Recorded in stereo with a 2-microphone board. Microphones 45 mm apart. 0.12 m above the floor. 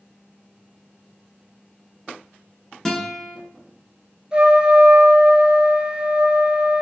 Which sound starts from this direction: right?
A trumpet, at 4.3 s.